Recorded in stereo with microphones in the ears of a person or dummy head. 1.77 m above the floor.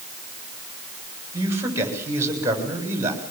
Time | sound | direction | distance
1.3 | a man speaking | 15° right (ahead or behind) | 7 m